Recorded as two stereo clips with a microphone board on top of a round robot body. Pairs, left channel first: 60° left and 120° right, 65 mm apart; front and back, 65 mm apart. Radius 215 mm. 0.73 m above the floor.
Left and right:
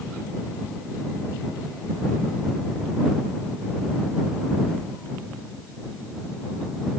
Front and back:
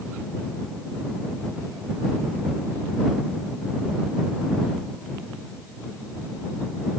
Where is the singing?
No singing in this recording.